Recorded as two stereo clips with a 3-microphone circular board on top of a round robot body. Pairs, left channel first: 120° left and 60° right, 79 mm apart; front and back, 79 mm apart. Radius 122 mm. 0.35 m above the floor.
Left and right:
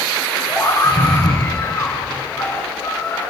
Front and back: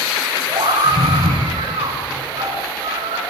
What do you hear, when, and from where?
0.5 s a scream: straight behind, 5.5 m